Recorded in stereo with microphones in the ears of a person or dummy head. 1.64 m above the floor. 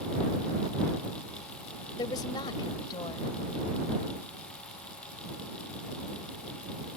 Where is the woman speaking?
25° left (ahead or behind).